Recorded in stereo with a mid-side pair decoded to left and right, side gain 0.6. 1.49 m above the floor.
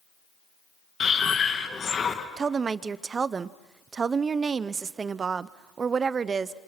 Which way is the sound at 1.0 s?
35° left.